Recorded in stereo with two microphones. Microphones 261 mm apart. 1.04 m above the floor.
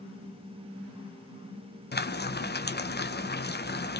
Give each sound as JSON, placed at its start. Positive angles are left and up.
{"t": 1.9, "sound": "frying", "side_deg": 40, "distance_m": 0.7}